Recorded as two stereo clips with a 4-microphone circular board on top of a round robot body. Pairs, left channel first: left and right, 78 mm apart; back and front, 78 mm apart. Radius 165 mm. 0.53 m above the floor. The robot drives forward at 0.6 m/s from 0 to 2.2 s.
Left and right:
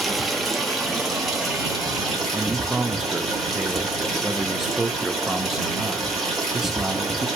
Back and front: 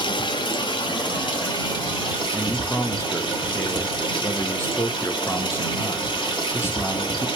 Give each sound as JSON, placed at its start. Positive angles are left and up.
{"t": 0.0, "sound": "running water", "azimuth_deg": 180, "distance_m": 0.7}
{"t": 2.3, "sound": "a man speaking", "azimuth_deg": -170, "distance_m": 0.8}